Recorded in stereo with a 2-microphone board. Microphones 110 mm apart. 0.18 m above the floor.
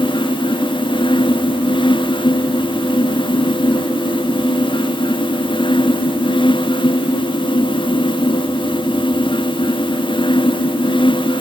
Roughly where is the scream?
I don't hear a scream.